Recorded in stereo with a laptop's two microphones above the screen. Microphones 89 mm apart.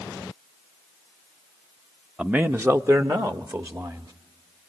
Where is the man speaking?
10° right (ahead or behind), 0.6 m; by 4.1 s 45° right (ahead or behind), 1.9 m.